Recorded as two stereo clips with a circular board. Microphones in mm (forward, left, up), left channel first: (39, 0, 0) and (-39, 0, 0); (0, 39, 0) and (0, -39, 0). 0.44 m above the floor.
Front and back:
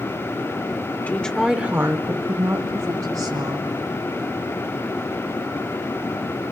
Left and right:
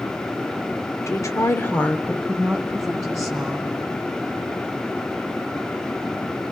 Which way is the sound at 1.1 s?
65° left.